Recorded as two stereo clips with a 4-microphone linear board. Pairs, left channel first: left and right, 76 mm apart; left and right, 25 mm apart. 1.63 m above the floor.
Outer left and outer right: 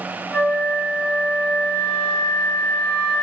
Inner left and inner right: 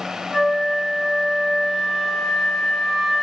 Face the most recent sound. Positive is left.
turn(degrees=15)  # may be behind; listen again after turning